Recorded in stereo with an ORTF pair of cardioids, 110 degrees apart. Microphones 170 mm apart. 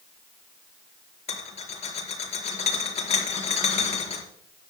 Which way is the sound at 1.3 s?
35° left.